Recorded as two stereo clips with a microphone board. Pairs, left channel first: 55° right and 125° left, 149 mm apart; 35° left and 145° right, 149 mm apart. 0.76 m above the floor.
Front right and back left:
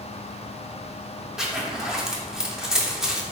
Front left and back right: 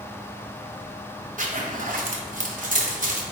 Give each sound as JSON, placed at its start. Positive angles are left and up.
{"t": 1.4, "sound": "a zipper", "azimuth_deg": -150, "distance_m": 0.5}